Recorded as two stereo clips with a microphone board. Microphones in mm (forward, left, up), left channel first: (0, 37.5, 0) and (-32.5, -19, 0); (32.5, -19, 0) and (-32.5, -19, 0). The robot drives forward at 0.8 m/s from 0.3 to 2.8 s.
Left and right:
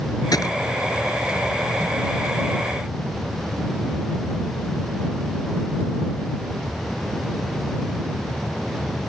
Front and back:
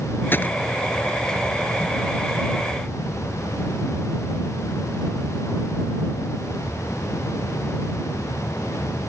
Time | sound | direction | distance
0.3 | a gunshot | 55° left | ?